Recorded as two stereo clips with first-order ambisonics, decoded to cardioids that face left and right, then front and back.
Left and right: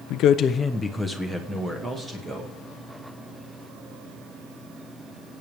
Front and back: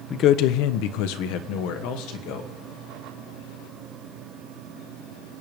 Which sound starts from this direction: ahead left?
A man speaking, at 0.1 s.